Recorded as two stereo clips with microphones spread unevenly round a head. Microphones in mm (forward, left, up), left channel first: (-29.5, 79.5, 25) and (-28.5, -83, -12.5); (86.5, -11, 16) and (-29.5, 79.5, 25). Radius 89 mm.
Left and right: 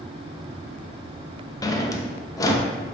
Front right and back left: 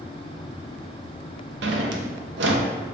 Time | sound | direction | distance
1.6 | a drawer | 160° left | 0.5 m